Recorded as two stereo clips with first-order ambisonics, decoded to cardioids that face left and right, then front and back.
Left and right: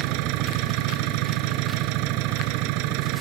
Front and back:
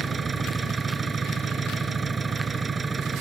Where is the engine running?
105° right.